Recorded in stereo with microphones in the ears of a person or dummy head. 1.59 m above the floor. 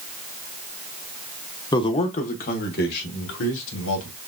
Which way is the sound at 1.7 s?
20° left (ahead or behind).